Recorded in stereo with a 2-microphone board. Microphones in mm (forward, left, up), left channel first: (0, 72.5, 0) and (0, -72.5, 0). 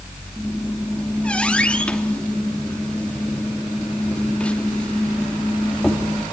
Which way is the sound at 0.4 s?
10° left (ahead or behind).